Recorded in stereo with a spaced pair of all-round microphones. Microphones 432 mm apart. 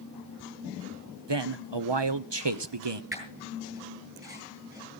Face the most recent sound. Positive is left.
turn(degrees=-10)  # may be behind; listen again after turning